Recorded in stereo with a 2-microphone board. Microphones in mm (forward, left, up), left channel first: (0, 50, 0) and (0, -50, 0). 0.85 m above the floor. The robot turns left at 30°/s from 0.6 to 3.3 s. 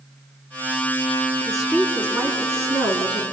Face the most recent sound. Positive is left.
turn(degrees=-55)